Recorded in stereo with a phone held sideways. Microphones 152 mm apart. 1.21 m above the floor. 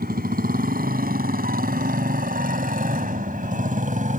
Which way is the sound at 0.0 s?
85° right.